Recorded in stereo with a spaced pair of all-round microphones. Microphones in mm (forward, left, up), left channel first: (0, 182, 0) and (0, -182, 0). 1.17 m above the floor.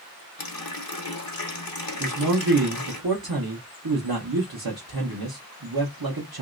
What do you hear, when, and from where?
0.4 s a running tap: 70° left (ahead or behind), 0.8 m
2.0 s a man speaking: 75° right (ahead or behind), 0.9 m